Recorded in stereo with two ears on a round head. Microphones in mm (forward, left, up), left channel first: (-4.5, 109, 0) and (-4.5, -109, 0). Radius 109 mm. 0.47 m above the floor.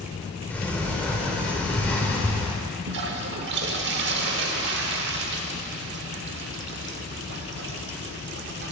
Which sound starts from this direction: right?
A toilet flushing, at 2.9 s.